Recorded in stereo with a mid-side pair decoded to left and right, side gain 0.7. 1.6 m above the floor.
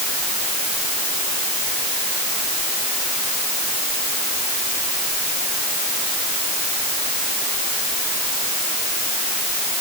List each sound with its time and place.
Only background noise.